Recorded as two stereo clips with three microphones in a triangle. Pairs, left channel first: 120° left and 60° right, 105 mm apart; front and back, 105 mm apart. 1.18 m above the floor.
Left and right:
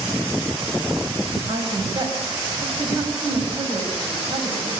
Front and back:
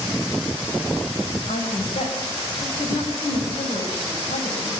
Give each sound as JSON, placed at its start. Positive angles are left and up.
{"t": 1.5, "sound": "a woman speaking", "azimuth_deg": -10, "distance_m": 7.5}